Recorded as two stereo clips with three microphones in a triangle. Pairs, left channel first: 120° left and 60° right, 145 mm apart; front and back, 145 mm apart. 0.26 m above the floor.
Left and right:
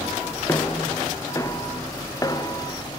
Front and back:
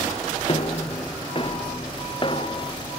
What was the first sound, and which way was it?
Footsteps, 50° left.